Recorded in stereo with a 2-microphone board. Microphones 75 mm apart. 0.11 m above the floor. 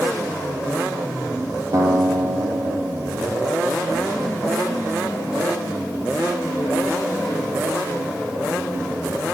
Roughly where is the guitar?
Right.